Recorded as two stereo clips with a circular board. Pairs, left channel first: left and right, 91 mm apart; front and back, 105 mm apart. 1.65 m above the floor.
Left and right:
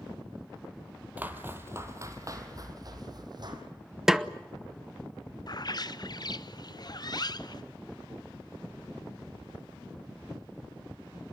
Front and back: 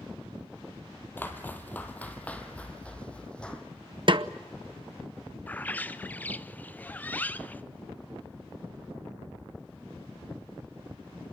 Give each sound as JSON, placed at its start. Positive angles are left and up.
{"t": 1.2, "sound": "footsteps", "azimuth_deg": -45, "distance_m": 1.8}
{"t": 4.1, "sound": "a snare drum", "azimuth_deg": -175, "distance_m": 0.7}
{"t": 5.5, "sound": "a bird", "azimuth_deg": 70, "distance_m": 0.6}